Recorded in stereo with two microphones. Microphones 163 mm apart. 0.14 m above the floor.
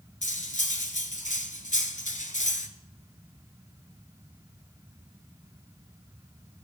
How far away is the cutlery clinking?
About 1.0 m.